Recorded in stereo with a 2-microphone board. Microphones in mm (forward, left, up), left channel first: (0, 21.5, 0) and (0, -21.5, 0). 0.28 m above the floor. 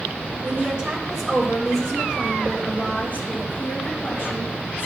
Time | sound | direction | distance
0.4 | a woman speaking | 30° right (ahead or behind) | 1.5 m